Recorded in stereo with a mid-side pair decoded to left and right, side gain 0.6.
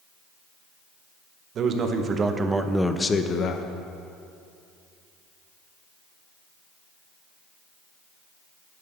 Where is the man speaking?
50° right, 1.2 m; by 3.7 s 55° left, 0.7 m.